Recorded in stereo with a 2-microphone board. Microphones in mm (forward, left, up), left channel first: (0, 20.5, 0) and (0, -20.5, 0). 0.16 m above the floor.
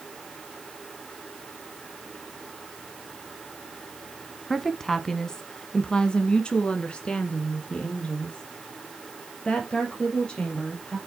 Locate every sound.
4.5 s a woman speaking: 5° left (ahead or behind), 1.1 m; by 11.0 s 30° left (ahead or behind), 3.5 m